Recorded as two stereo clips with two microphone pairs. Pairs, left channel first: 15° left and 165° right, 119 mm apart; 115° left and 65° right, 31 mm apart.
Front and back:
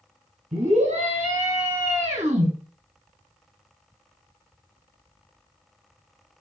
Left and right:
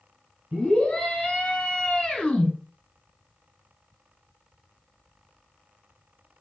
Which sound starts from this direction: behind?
A scream, at 0.5 s.